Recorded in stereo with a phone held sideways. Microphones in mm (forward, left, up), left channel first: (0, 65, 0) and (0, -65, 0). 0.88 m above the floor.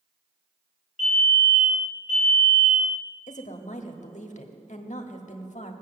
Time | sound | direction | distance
1.0 | a fire alarm | centre (ahead or behind) | 4.5 m
3.3 | a woman speaking | 70° left (ahead or behind) | 1.4 m